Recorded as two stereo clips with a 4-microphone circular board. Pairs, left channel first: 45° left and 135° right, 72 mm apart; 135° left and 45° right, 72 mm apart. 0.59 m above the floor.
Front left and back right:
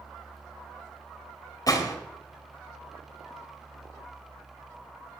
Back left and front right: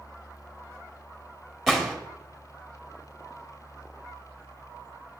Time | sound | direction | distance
1.7 | a gunshot | 50° left | 1.6 m